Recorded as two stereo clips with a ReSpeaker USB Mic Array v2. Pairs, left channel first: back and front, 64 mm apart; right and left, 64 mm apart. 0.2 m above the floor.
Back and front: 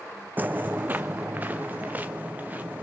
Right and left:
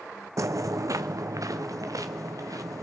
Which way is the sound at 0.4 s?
60° left.